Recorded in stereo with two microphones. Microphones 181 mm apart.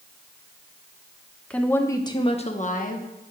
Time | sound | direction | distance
1.5 | a woman speaking | 5° left (ahead or behind) | 1.0 m